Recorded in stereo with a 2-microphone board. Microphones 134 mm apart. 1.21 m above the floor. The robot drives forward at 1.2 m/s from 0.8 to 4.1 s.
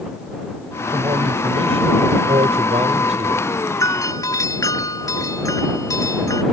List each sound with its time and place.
0.9 s a man speaking: 40° right (ahead or behind); by 3.5 s 60° right (ahead or behind)
3.8 s a doorbell: 25° left (ahead or behind)